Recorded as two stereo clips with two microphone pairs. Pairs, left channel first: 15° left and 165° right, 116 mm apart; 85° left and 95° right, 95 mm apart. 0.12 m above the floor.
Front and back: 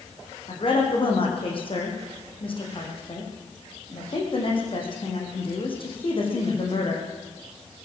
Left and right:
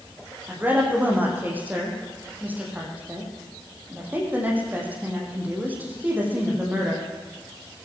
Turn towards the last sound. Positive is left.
turn(degrees=-25)